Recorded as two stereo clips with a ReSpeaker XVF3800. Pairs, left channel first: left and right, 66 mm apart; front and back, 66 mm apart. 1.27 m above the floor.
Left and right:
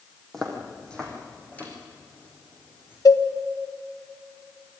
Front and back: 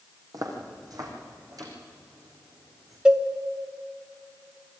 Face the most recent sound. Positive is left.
turn(degrees=105)